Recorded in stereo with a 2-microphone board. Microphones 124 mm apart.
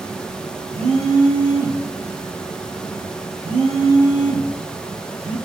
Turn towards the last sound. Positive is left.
turn(degrees=-55)  # may be behind; listen again after turning